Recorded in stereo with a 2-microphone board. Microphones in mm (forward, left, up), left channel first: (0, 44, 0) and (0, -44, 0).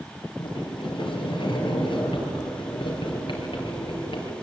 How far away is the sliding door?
About 5 m.